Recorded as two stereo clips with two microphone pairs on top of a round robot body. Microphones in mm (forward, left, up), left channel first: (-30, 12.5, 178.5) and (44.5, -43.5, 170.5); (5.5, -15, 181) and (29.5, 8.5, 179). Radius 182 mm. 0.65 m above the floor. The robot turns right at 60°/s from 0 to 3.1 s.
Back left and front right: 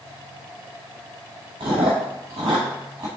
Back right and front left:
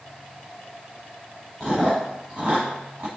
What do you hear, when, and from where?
1.6 s chewing: 65° right, 0.8 m; by 3.1 s 20° left, 0.8 m